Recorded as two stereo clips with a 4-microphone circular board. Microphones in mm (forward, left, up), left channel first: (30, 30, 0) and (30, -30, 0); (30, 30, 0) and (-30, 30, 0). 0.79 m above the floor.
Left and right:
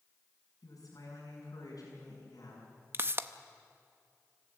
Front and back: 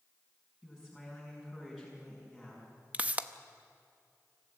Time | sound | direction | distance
0.6 | a woman speaking | 100° left | 6 m
2.9 | a pop | 120° right | 0.7 m